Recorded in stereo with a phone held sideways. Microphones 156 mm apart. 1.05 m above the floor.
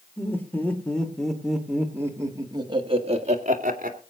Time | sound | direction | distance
0.2 | laughter | 15° left (ahead or behind) | 3.5 m